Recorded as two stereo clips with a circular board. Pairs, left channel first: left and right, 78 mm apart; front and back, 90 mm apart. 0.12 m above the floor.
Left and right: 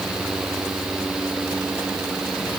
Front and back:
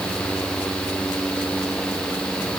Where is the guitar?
I don't hear a guitar.